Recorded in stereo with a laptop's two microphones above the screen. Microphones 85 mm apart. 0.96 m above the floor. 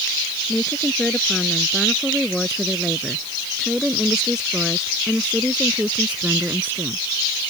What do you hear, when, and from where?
0.5 s a woman speaking: 10° left (ahead or behind); by 7.1 s 20° right (ahead or behind)